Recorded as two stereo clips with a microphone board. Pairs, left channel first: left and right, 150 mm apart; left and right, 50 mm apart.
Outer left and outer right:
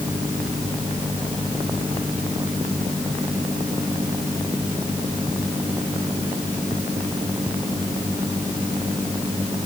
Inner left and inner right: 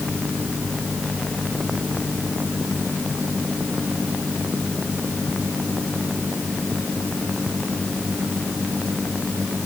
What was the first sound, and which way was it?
Only background noise.